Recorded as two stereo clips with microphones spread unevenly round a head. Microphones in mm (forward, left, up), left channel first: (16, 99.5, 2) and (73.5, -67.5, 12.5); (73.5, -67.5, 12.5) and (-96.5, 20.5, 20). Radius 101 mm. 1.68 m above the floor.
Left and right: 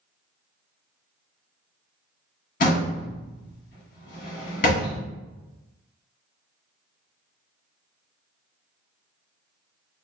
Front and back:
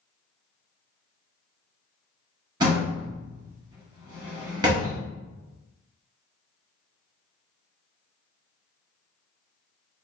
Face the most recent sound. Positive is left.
turn(degrees=95)